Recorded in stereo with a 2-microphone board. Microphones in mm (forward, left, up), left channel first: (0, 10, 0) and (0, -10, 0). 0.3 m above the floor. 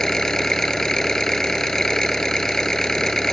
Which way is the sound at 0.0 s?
25° left (ahead or behind).